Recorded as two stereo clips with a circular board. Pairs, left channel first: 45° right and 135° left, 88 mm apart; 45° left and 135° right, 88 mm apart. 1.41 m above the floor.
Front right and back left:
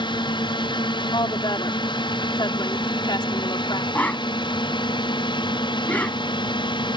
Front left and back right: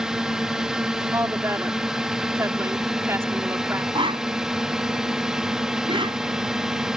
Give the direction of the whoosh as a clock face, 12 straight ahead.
4 o'clock.